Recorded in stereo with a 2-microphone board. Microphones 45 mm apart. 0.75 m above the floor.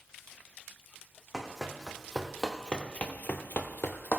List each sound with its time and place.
1.3 s running footsteps: 10° right (ahead or behind), 2.5 m; by 4.2 s 50° left (ahead or behind), 1.7 m